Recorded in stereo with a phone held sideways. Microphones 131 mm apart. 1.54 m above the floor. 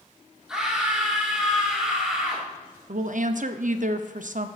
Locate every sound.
0.5 s a scream: 5° right (ahead or behind), 1.8 m
2.9 s a woman speaking: 65° right (ahead or behind), 0.6 m